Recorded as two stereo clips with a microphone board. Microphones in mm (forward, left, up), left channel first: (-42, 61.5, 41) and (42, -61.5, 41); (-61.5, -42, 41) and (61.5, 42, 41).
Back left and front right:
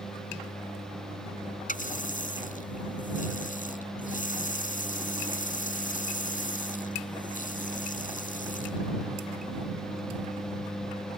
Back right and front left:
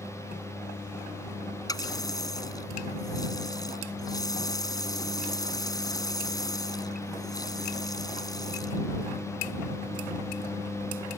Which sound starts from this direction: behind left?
A running tap, at 1.7 s.